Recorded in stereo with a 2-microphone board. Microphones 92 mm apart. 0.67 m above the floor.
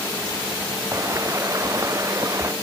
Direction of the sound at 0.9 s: 35° right (ahead or behind).